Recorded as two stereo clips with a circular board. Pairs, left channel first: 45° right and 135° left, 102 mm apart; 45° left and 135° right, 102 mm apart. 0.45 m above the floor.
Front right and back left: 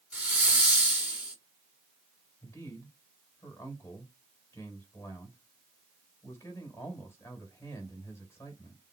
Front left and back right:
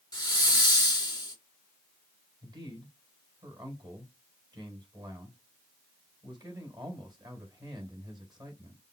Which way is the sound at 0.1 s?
65° left.